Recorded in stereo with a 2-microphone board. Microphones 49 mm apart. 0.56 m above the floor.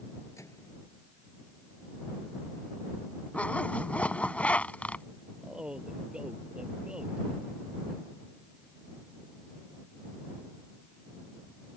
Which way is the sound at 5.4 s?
15° right (ahead or behind).